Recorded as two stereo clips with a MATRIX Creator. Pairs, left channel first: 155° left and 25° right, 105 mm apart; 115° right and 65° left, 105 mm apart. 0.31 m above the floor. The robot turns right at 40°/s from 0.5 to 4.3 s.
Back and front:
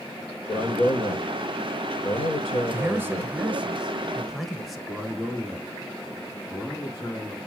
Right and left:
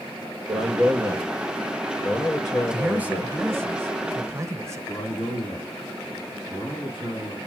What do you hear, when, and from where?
0.5 s a man speaking: 110° left, 6.5 m; by 3.4 s 135° right, 6.5 m
2.7 s a man speaking: straight ahead, 1.1 m; by 4.8 s 65° left, 1.1 m
4.9 s a man speaking: 90° right, 3.5 m